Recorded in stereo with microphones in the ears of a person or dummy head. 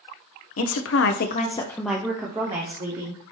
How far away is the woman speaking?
About 0.7 m.